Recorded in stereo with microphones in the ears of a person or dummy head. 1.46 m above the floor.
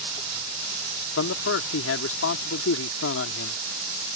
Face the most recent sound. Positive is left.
turn(degrees=80)